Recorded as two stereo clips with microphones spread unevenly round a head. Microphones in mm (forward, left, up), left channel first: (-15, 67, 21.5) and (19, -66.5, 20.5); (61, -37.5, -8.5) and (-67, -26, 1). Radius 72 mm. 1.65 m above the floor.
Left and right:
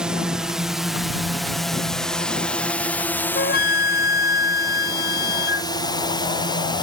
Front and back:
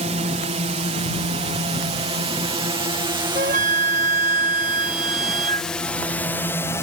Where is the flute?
130° left.